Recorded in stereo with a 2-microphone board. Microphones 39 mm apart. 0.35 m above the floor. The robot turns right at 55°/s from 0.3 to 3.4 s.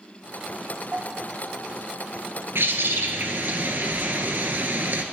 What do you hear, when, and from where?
0.9 s a bell: 45° right, 0.9 m; by 2.2 s 25° left, 0.9 m
2.5 s a bird: 100° right, 1.0 m; by 5.0 s 55° right, 1.0 m